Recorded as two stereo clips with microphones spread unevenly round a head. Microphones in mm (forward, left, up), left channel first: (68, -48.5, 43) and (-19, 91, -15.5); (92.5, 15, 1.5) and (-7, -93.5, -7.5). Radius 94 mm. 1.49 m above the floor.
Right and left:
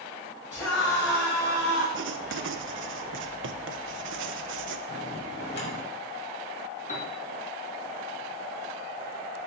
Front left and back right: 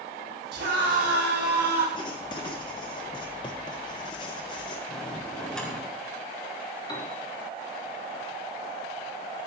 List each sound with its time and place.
0.5 s a scream: 140° right, 7.5 m; by 1.8 s 135° right, 8.5 m
1.9 s writing: 110° left, 1.0 m
4.9 s a bell: 35° right, 5 m
6.9 s a piano: 15° right, 3 m